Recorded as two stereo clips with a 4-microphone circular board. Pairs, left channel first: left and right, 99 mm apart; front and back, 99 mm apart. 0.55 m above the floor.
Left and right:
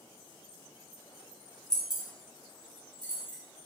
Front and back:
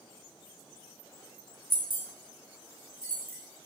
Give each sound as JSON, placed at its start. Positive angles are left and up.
{"t": 1.7, "sound": "keys jangling", "azimuth_deg": 170, "distance_m": 0.8}